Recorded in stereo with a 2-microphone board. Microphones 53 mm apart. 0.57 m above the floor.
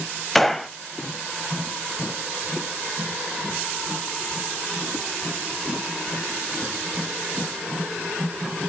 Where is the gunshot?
5° left (ahead or behind), 0.5 m.